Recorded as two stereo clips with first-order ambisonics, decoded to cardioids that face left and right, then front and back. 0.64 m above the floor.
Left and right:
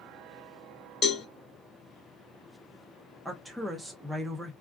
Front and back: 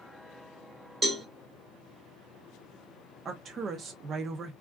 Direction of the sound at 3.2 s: 165° right.